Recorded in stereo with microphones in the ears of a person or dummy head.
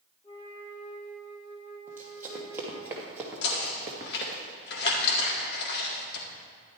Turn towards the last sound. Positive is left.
turn(degrees=65)  # may be behind; listen again after turning